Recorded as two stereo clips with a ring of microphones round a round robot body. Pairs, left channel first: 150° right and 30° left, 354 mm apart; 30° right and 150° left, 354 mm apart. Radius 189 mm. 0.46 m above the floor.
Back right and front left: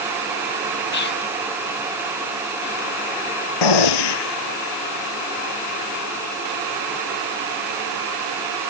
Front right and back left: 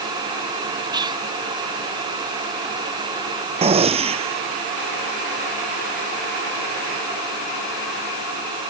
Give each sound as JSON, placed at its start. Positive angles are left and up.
{"t": 0.9, "sound": "whispering", "azimuth_deg": -145}
{"t": 3.6, "sound": "a gunshot", "azimuth_deg": -135}